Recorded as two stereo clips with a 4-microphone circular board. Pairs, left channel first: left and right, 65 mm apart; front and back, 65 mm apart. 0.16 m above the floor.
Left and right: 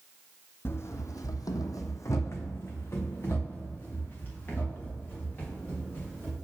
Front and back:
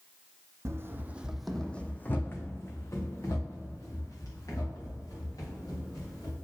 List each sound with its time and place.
0.7 s running footsteps: 140° left, 0.5 m; by 6.3 s 25° left, 3 m